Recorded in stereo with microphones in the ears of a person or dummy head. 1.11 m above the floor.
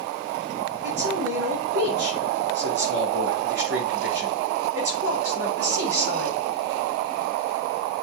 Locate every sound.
0.8 s a man speaking: 55° right (ahead or behind), 4.5 m